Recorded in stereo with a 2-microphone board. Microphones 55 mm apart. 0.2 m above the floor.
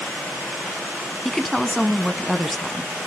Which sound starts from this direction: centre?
A woman speaking, at 1.2 s.